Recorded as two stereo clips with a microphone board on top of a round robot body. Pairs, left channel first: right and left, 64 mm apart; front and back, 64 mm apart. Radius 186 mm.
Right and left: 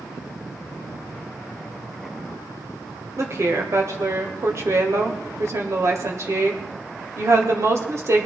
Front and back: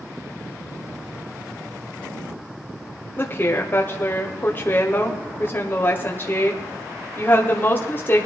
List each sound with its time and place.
3.2 s a woman speaking: 55° left, 1.9 m